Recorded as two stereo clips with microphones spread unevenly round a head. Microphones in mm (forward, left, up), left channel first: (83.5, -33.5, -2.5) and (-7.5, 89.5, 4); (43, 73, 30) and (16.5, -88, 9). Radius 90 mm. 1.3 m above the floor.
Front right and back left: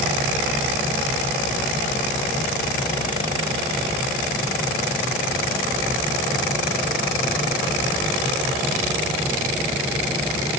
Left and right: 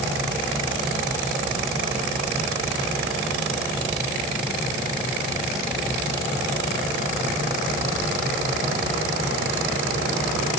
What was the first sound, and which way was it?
Only background noise.